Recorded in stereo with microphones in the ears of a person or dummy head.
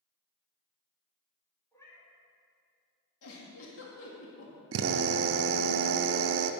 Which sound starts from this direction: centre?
A cat meowing, at 1.7 s.